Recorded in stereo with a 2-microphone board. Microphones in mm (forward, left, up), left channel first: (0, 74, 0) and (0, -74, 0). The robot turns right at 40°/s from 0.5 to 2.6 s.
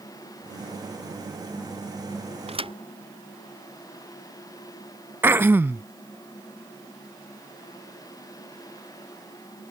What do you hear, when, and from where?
2.5 s a thud: 45° right (ahead or behind); by 2.7 s 40° right (ahead or behind)
5.2 s throat clearing: 15° right (ahead or behind)